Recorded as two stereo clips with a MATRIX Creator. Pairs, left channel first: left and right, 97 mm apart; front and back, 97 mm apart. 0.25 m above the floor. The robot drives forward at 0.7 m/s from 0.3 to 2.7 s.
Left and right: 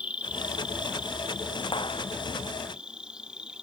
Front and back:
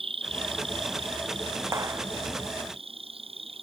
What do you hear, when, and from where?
0.0 s an insect: 170° right
1.7 s a clap: 120° left